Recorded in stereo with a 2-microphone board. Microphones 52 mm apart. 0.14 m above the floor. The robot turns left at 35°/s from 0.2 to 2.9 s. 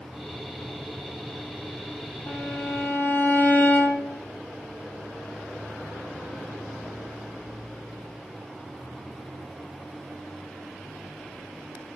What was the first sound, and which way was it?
A violin, 65° left (ahead or behind).